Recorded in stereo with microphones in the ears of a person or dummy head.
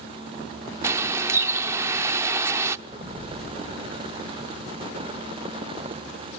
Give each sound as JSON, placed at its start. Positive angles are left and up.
{"t": 0.8, "sound": "a bird", "side_deg": -15, "distance_m": 0.7}
{"t": 2.9, "sound": "an explosion", "side_deg": -45, "distance_m": 7.0}